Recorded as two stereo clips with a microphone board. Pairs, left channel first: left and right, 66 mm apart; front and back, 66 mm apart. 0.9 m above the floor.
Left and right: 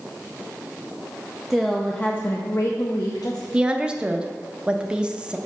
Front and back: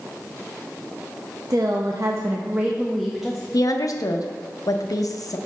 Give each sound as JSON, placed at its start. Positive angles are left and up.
{"t": 1.5, "sound": "a woman speaking", "azimuth_deg": -175, "distance_m": 0.6}
{"t": 3.5, "sound": "a woman speaking", "azimuth_deg": -15, "distance_m": 0.6}